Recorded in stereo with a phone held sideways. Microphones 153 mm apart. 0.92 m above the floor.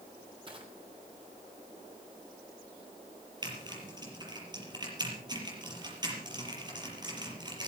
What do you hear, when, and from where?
0.5 s crushing: 35° right (ahead or behind), 4 m
3.4 s typing on a keyboard: 30° right (ahead or behind), 6 m